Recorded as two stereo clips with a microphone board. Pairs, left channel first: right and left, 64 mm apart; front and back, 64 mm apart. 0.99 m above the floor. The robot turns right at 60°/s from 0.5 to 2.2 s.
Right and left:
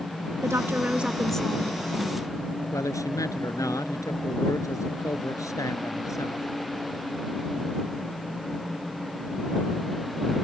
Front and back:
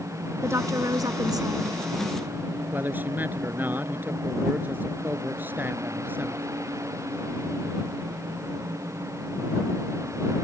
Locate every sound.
0.4 s a woman speaking: 135° left; by 1.7 s 155° right
2.7 s a man speaking: 120° right